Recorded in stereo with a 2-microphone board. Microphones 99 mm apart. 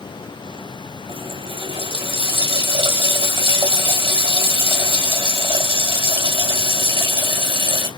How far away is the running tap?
About 2 m.